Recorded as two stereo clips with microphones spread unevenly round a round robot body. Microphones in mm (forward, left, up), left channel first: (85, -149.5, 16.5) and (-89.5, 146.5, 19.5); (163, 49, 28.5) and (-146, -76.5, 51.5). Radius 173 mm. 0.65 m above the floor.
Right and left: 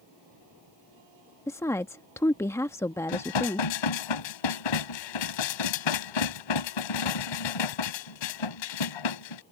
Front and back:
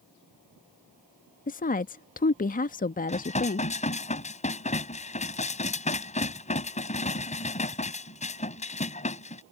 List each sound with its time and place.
1.5 s a woman speaking: 15° left
3.1 s dishes clattering: 50° right